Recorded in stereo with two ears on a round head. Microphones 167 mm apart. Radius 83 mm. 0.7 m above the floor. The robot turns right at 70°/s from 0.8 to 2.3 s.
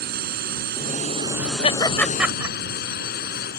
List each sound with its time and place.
0.0 s a drone: 50° right; by 3.6 s 55° left
1.6 s laughter: 35° left (ahead or behind); by 2.5 s 10° right (ahead or behind)